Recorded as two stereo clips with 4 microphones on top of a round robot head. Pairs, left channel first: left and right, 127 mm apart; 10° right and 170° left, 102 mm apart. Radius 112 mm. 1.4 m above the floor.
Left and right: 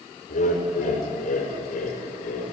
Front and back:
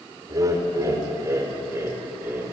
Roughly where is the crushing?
No crushing in this recording.